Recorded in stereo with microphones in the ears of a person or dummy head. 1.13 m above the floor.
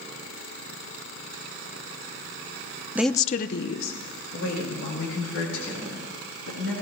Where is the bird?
I don't hear a bird.